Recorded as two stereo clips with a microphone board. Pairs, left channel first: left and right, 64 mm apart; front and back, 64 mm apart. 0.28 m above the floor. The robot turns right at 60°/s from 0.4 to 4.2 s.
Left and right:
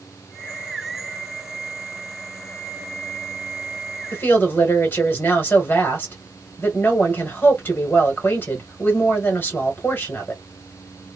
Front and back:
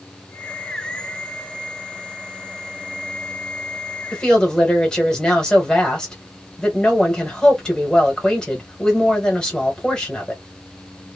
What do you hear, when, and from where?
4.1 s a woman speaking: 65° left, 1.2 m; by 10.4 s 70° left, 1.2 m